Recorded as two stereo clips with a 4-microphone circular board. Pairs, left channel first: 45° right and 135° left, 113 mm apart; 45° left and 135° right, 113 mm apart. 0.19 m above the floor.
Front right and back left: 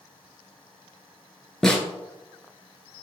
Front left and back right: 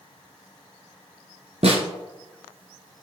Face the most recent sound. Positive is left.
turn(degrees=-130)